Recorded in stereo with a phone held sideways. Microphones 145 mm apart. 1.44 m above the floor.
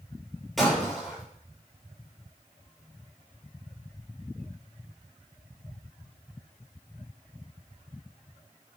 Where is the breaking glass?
Centre (ahead or behind), 6.5 m.